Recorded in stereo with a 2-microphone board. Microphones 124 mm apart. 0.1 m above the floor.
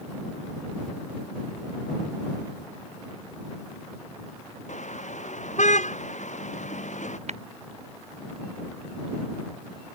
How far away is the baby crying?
I don't hear a baby crying.